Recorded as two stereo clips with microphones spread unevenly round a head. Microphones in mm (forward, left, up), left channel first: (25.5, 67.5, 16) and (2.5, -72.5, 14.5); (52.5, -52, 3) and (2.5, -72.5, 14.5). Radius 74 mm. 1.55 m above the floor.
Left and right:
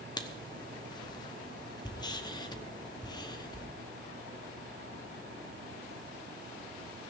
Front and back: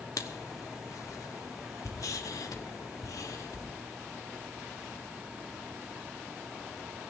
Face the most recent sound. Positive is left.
turn(degrees=20)